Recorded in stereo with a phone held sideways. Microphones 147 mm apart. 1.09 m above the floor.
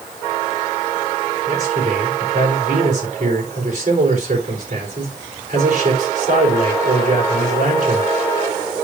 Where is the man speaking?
55° right (ahead or behind), 4 m.